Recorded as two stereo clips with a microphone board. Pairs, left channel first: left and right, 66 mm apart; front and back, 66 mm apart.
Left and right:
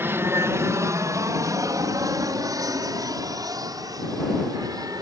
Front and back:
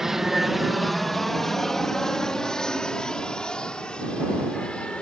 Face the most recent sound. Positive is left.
turn(degrees=-75)